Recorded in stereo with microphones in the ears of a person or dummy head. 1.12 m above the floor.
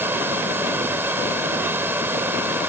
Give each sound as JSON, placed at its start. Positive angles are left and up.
{"t": 0.0, "sound": "a fan", "side_deg": -10}